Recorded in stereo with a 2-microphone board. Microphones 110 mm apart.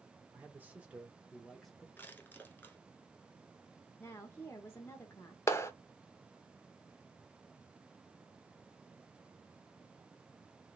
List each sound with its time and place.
0.3 s a man speaking: 20° right (ahead or behind), 1.1 m; by 1.9 s 5° left (ahead or behind), 1.2 m
2.0 s crushing: 15° left (ahead or behind), 1.0 m
4.0 s a woman speaking: 20° left (ahead or behind), 0.9 m
5.5 s a clap: 25° left (ahead or behind), 0.7 m